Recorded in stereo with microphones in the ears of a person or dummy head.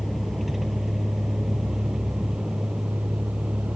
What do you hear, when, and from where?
0.0 s a vehicle: centre (ahead or behind); by 3.8 s 5° right (ahead or behind)